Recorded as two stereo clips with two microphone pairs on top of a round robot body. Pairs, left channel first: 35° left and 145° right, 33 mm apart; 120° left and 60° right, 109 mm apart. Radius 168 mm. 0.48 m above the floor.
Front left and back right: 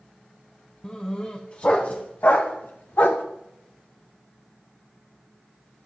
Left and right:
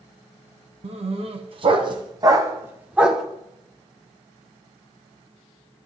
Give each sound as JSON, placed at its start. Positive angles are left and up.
{"t": 0.8, "sound": "a dog barking", "azimuth_deg": -30, "distance_m": 2.0}